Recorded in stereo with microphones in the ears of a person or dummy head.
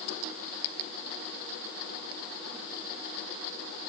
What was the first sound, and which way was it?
Only background noise.